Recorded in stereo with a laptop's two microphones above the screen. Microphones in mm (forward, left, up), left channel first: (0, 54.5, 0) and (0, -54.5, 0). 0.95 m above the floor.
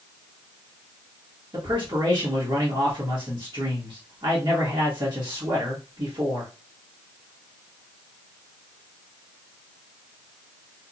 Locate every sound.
1.5 s a man speaking: 50° right (ahead or behind), 1.3 m